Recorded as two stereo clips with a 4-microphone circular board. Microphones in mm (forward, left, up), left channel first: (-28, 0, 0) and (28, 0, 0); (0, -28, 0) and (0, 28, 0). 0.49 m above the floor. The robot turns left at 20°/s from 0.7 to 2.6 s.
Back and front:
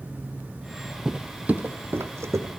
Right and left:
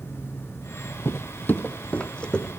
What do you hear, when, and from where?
1.1 s footsteps: 80° right, 0.7 m; by 2.5 s 20° right, 1.1 m